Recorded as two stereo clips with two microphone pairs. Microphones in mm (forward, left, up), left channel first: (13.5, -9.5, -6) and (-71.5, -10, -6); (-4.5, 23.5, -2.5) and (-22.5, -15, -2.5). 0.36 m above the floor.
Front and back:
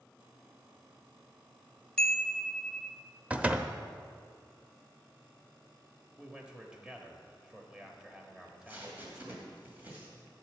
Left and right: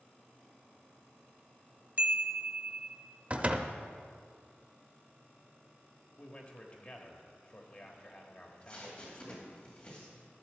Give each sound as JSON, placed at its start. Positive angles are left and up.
{"t": 2.0, "sound": "a chime", "azimuth_deg": -80, "distance_m": 0.8}
{"t": 3.3, "sound": "a door slam", "azimuth_deg": -125, "distance_m": 0.6}
{"t": 6.2, "sound": "a man speaking", "azimuth_deg": 110, "distance_m": 1.2}
{"t": 8.4, "sound": "tape being pulled", "azimuth_deg": 120, "distance_m": 2.5}